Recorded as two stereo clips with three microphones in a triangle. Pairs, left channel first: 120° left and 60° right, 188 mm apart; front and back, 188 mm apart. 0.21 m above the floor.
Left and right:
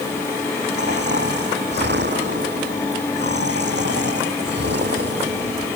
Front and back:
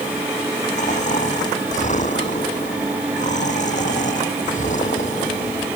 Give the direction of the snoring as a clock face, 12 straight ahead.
2 o'clock.